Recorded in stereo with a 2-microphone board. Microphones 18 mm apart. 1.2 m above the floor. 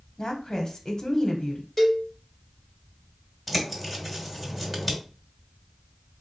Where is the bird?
10° right (ahead or behind), 1.2 m.